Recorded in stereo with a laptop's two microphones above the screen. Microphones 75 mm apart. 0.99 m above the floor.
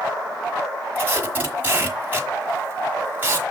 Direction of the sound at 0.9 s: 25° right (ahead or behind).